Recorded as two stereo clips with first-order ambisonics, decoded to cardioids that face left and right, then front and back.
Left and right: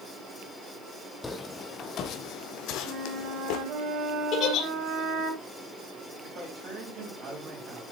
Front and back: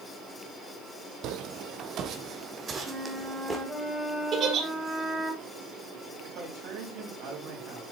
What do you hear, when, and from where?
1.2 s footsteps: 165° left, 0.9 m; by 3.6 s 100° left, 1.4 m
2.9 s a flute: 110° right, 2 m
4.3 s a giggle: 130° left, 1.8 m
6.2 s a man speaking: 145° right, 4.5 m